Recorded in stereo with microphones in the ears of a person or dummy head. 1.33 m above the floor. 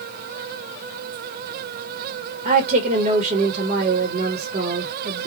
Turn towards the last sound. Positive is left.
turn(degrees=-45)  # may be behind; listen again after turning